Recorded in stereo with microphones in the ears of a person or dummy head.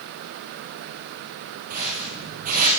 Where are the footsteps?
45° right (ahead or behind), 5 m.